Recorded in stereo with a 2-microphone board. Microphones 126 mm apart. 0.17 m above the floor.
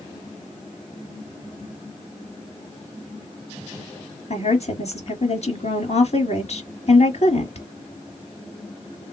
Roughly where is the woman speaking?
Left.